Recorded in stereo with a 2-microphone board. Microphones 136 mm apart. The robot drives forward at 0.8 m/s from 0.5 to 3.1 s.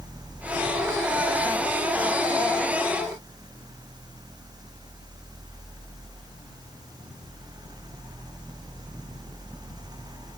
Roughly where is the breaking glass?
I don't hear breaking glass.